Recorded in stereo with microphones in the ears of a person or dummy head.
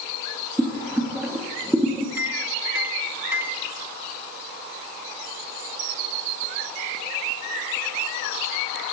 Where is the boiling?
Centre (ahead or behind), 2 m.